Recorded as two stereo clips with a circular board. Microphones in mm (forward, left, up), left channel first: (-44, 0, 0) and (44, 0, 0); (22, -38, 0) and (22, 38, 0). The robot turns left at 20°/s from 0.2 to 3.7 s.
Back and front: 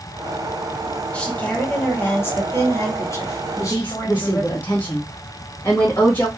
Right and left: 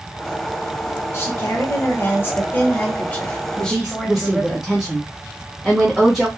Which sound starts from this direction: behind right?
A woman speaking, at 1.1 s.